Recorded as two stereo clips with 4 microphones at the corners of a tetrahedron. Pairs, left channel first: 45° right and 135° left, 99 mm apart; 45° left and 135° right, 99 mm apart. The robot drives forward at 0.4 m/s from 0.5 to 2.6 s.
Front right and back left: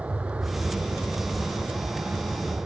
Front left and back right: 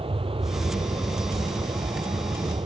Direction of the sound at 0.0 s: 150° right.